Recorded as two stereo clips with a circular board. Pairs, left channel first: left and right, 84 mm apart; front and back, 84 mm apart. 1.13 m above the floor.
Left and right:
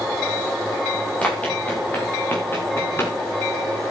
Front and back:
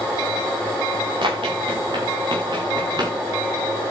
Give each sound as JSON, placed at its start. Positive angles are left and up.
{"t": 1.2, "sound": "running footsteps", "azimuth_deg": 165, "distance_m": 6.5}